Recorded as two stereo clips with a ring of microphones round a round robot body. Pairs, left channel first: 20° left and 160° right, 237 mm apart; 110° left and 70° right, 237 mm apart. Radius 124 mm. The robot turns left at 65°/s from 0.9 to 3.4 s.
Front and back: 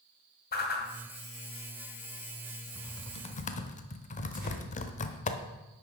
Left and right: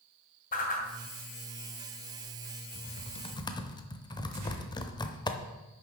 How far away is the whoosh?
About 2.5 m.